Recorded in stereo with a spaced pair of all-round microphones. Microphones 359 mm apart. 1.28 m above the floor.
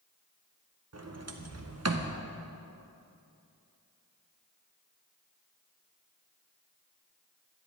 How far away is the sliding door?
About 0.6 m.